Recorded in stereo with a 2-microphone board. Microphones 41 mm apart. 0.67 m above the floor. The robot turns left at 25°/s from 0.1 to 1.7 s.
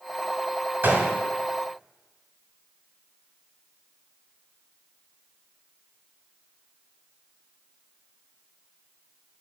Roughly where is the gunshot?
Right.